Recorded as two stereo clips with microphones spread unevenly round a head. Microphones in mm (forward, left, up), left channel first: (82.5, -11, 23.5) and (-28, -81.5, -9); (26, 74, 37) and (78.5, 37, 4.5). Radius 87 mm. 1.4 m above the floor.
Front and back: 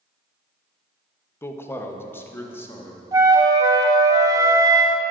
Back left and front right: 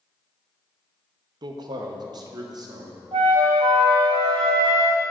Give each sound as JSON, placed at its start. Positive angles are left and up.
{"t": 1.4, "sound": "a man speaking", "azimuth_deg": -40, "distance_m": 0.7}
{"t": 3.1, "sound": "a flute", "azimuth_deg": -80, "distance_m": 0.7}